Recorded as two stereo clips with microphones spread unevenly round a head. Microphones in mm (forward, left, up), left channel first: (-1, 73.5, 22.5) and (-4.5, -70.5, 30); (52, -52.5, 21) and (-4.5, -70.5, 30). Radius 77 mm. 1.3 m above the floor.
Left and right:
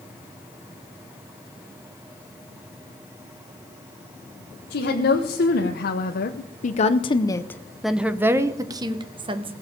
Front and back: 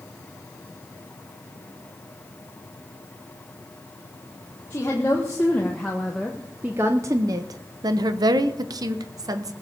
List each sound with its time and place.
4.7 s a woman speaking: 85° left, 1.5 m; by 9.5 s 145° right, 1.4 m